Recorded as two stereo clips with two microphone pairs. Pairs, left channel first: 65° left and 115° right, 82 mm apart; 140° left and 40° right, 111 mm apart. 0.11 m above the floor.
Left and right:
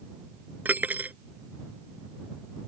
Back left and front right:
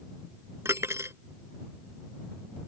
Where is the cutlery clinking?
75° right.